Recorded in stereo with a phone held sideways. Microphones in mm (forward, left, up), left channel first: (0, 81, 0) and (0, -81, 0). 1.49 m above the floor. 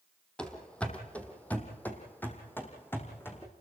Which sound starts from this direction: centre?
Running footsteps, at 0.4 s.